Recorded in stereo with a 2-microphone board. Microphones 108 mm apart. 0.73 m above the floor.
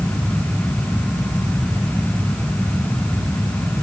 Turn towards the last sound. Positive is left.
No sound to turn to.